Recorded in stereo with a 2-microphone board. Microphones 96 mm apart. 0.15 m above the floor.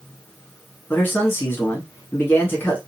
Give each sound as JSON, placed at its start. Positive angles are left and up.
{"t": 0.9, "sound": "a man speaking", "side_deg": 20, "distance_m": 1.4}